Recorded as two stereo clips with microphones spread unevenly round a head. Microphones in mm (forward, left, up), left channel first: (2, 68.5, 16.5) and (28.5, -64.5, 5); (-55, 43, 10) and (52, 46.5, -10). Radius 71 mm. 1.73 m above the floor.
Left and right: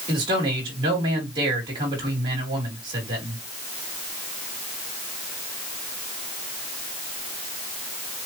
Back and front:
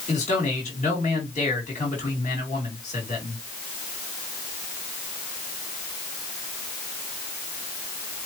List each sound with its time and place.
0.1 s a man speaking: 140° right, 3 m